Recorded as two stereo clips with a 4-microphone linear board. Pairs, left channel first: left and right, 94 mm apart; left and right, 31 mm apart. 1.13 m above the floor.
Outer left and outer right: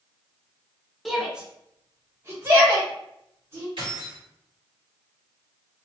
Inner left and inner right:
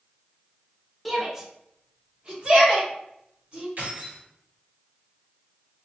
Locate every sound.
1.1 s a shout: centre (ahead or behind), 0.8 m; by 3.7 s 35° right (ahead or behind), 1.4 m
3.8 s keys jangling: 65° right (ahead or behind), 1.9 m